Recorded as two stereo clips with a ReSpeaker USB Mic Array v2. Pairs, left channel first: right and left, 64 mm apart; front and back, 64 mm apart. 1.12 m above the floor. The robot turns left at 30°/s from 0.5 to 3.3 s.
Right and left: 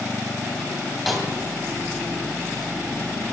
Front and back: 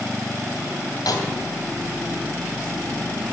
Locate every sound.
1.1 s a snare drum: 5° left, 2.5 m; by 1.3 s straight ahead, 2.5 m